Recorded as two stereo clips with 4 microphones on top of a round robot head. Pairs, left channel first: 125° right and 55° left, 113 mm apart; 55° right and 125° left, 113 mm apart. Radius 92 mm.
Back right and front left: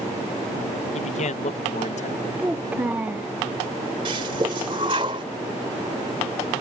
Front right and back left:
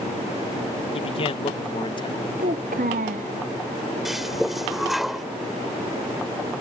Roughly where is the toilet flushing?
Ahead left.